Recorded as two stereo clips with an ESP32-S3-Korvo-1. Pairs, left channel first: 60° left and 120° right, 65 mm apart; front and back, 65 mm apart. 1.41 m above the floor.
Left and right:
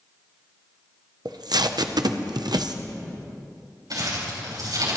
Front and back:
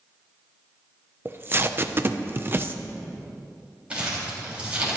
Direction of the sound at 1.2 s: 120° right.